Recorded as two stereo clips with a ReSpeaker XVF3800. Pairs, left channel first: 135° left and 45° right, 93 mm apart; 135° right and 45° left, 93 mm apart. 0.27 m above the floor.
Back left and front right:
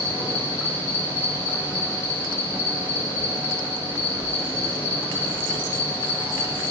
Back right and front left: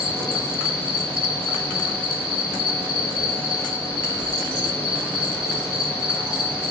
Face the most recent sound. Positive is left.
turn(degrees=75)